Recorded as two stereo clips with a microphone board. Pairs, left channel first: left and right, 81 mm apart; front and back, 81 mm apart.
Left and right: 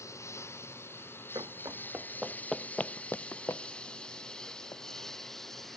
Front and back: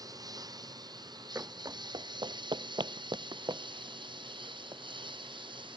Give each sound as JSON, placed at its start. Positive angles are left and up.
{"t": 0.0, "sound": "a lawn mower", "azimuth_deg": 140}
{"t": 1.4, "sound": "running footsteps", "azimuth_deg": -120}